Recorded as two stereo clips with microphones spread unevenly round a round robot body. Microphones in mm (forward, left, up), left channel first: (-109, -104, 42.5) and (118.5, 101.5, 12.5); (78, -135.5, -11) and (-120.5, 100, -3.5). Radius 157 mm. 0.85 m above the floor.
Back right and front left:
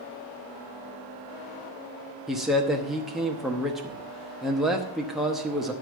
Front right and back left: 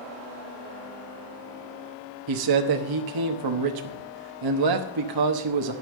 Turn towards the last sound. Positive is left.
turn(degrees=130)